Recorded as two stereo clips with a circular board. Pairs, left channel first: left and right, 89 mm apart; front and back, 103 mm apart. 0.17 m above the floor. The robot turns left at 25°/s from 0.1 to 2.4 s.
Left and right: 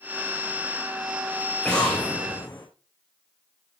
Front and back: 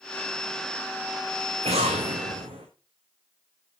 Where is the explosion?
175° left, 4.5 m; by 2.7 s 155° left, 4.5 m.